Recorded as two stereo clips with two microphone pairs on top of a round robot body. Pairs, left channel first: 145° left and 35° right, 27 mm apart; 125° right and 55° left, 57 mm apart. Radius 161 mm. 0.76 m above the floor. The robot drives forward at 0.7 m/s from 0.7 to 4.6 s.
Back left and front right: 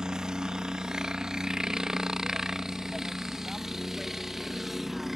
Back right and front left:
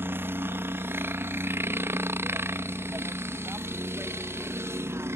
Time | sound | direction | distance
0.0 | a helicopter | 15° left | ?